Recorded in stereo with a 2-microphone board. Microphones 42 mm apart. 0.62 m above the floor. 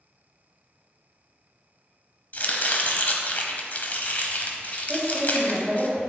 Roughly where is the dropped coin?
No dropped coin in this recording.